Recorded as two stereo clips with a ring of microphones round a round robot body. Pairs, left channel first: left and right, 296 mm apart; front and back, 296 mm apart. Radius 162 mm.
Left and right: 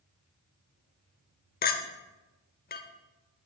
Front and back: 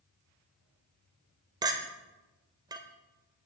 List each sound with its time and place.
1.6 s a clink: 115° left, 0.9 m